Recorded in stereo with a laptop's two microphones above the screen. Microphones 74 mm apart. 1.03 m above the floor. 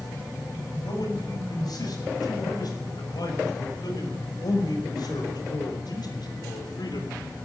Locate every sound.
0.8 s a man speaking: 65° left (ahead or behind), 7 m; by 7.2 s 75° left (ahead or behind), 3.5 m